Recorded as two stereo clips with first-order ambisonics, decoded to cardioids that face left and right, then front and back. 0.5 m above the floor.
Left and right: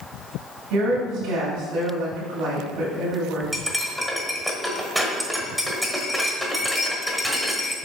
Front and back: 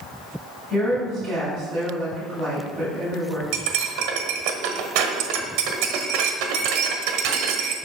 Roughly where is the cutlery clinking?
Behind.